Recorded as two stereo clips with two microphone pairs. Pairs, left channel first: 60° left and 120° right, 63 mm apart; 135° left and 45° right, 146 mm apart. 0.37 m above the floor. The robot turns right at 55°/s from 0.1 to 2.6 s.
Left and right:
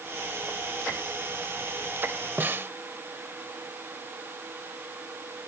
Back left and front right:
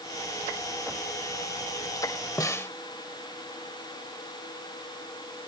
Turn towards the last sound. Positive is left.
turn(degrees=-155)